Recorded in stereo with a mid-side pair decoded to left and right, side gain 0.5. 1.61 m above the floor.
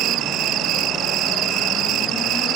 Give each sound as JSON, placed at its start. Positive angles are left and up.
{"t": 0.0, "sound": "an insect", "azimuth_deg": -70}